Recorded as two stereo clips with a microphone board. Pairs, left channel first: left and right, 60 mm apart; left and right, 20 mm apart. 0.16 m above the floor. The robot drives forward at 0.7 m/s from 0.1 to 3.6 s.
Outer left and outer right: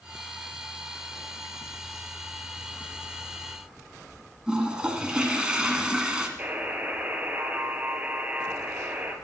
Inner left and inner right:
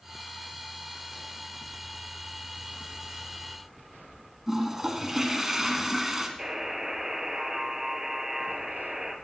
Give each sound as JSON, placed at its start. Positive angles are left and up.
{"t": 4.5, "sound": "a toilet flushing", "side_deg": -15, "distance_m": 1.6}
{"t": 6.4, "sound": "a buzzer", "side_deg": -25, "distance_m": 1.7}